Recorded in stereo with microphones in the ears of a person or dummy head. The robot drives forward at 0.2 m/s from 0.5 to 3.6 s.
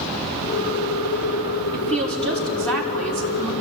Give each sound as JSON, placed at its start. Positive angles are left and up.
{"t": 1.7, "sound": "a woman speaking", "side_deg": 5, "distance_m": 5.0}